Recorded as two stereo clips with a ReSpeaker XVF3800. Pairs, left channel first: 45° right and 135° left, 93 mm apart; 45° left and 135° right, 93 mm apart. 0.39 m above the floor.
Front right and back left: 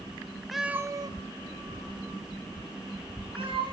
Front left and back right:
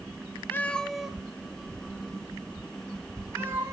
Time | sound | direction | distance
0.5 | a cat meowing | 40° left | 0.5 m